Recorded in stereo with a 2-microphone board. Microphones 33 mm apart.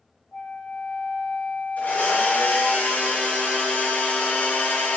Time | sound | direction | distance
0.3 | a flute | 75° left (ahead or behind) | 3.5 m
1.8 | a blender | 55° left (ahead or behind) | 3.5 m